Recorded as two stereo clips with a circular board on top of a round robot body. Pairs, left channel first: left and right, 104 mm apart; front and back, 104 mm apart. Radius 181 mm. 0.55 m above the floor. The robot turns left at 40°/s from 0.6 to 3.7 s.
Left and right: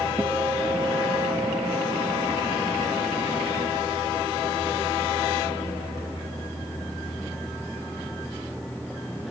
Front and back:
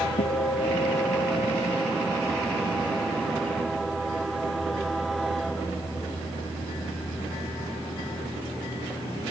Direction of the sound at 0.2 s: 15° right.